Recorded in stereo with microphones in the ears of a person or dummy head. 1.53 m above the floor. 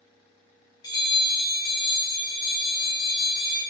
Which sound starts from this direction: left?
A bell, at 0.8 s.